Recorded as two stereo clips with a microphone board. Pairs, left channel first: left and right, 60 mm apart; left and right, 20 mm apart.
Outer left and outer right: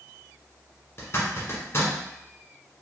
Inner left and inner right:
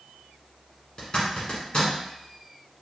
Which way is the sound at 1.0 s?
45° left (ahead or behind).